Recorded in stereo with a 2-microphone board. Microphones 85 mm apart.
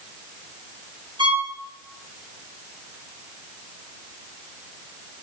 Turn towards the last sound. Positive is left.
turn(degrees=-65)  # may be behind; listen again after turning